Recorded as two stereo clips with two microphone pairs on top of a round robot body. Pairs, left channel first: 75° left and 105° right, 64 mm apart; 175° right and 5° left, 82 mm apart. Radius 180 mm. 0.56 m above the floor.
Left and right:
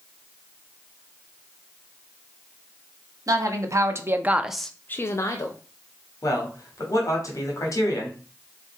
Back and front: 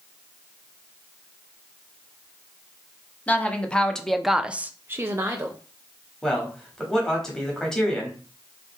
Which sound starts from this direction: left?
A man speaking, at 6.2 s.